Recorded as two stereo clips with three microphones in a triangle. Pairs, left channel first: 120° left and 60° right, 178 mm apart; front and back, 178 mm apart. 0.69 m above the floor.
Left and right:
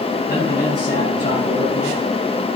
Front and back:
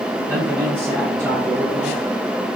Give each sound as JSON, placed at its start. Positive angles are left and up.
{"t": 0.3, "sound": "a man speaking", "azimuth_deg": 105, "distance_m": 5.5}